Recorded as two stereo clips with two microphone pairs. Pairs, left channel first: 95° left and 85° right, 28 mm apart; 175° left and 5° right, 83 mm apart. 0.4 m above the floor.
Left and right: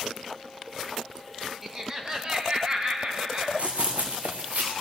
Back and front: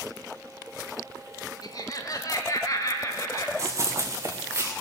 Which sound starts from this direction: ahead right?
Running footsteps, at 3.6 s.